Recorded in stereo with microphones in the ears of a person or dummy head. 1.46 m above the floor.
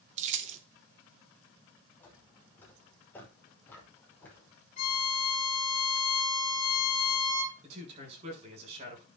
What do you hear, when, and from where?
0.2 s keys jangling: 45° right (ahead or behind), 0.6 m
2.0 s footsteps: 10° left (ahead or behind), 5 m
4.8 s a violin: 45° left (ahead or behind), 3.5 m
7.6 s a man speaking: 40° right (ahead or behind), 6 m